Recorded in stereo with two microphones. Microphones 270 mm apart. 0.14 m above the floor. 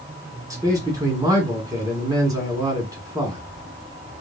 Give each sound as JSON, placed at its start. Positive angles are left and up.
{"t": 0.5, "sound": "a man speaking", "side_deg": -15, "distance_m": 1.7}